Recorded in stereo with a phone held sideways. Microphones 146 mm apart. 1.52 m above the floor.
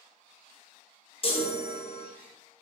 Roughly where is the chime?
Left.